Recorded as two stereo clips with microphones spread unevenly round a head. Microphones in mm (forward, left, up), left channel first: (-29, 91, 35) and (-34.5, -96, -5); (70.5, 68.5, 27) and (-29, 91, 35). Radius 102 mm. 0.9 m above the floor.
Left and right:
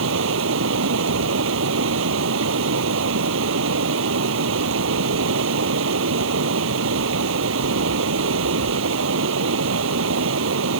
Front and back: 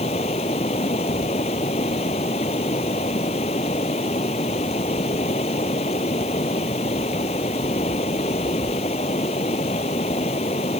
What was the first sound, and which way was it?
Running water, 65° right.